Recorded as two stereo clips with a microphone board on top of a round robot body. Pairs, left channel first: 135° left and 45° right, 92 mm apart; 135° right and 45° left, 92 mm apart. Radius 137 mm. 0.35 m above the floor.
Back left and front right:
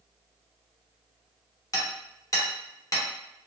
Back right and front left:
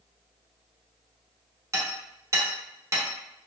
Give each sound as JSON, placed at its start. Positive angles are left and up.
{"t": 1.7, "sound": "hammering", "azimuth_deg": 90, "distance_m": 1.4}